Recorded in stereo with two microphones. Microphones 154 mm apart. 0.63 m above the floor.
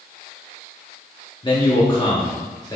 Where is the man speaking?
30° left (ahead or behind), 1.0 m; by 2.8 s 25° left (ahead or behind), 1.3 m.